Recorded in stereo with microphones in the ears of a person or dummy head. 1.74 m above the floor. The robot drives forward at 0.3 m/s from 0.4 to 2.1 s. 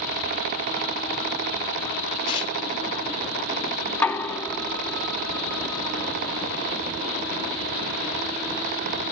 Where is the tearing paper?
30° left (ahead or behind), 0.6 m.